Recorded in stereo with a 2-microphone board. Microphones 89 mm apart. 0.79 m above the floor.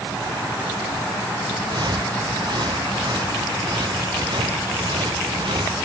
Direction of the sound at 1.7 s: 55° right (ahead or behind).